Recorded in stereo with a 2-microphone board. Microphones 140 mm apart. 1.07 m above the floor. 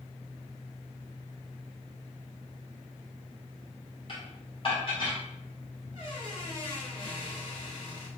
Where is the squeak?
45° left (ahead or behind), 1.8 m.